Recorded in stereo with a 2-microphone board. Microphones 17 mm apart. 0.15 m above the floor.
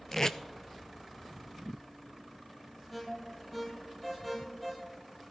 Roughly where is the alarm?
Centre.